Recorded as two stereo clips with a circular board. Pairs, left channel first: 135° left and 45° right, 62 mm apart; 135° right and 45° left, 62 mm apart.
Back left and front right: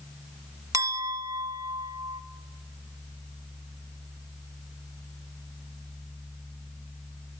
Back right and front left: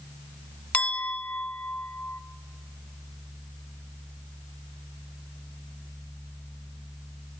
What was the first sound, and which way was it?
A clink, 70° right.